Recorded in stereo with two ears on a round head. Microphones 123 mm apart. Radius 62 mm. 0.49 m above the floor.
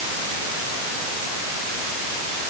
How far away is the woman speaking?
I don't hear a woman speaking.